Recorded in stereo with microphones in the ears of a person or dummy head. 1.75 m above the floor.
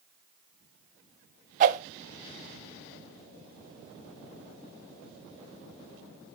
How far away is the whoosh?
About 0.6 m.